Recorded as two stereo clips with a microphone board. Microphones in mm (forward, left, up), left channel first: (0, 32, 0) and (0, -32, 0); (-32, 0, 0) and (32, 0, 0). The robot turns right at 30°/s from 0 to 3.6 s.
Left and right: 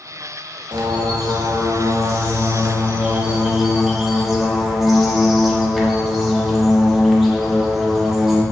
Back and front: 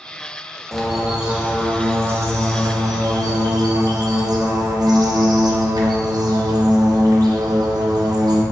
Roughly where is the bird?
Right.